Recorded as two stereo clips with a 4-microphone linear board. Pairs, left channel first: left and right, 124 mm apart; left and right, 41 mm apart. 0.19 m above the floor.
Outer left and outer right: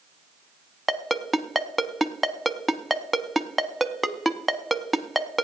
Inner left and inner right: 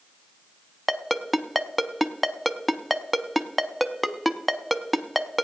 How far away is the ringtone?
About 0.5 m.